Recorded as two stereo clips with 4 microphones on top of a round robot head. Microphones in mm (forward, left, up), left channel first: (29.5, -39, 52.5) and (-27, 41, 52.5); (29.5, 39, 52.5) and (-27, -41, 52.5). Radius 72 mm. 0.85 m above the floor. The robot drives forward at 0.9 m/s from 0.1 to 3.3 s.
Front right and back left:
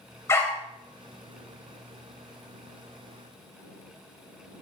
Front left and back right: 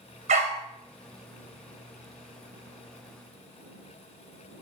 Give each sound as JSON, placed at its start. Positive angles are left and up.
{"t": 0.3, "sound": "a dog barking", "azimuth_deg": -120, "distance_m": 1.8}